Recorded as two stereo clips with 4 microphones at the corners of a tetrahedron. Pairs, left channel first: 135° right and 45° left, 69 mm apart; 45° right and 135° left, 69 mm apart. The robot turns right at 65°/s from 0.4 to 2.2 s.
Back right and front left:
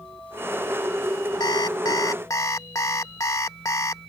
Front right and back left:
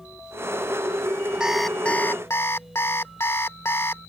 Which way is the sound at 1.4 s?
145° right.